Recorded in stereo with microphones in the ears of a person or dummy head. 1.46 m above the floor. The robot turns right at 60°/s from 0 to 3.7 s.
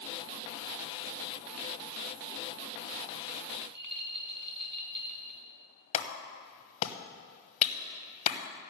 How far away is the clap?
About 1.1 m.